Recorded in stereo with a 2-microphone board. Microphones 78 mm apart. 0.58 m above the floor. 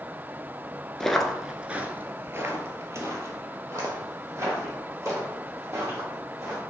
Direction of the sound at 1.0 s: 10° left (ahead or behind).